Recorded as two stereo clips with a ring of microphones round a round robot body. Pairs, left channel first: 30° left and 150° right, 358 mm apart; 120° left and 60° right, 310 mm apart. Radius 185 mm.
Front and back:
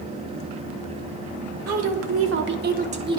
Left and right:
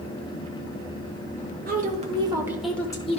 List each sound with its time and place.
1.7 s a woman speaking: 115° right, 1.2 m; by 3.2 s 145° left, 0.8 m